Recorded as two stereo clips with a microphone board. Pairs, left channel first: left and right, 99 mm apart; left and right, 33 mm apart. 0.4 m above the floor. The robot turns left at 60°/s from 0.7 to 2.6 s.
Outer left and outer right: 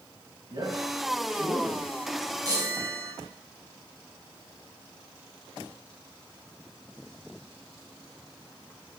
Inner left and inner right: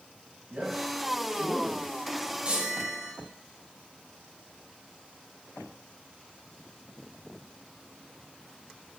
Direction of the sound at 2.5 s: 40° right (ahead or behind).